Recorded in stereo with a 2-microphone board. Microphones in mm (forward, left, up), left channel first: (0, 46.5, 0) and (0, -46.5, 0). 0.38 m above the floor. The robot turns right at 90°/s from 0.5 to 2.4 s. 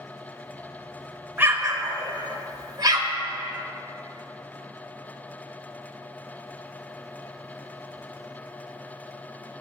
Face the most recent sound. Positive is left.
turn(degrees=-45)  # may be behind; listen again after turning